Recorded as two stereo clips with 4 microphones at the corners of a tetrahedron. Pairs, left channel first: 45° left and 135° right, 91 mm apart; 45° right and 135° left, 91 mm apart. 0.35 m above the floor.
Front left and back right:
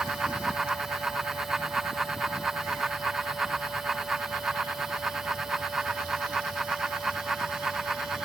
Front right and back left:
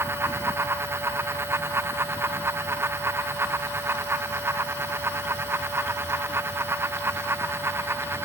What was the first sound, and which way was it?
Only background noise.